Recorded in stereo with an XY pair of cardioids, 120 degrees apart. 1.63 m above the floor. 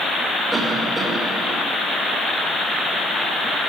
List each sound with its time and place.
0.5 s a cough: 15° right, 6.5 m